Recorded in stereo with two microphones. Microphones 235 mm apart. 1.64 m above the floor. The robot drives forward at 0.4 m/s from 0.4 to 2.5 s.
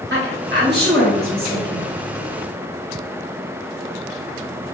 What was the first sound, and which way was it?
A woman speaking, 55° right (ahead or behind).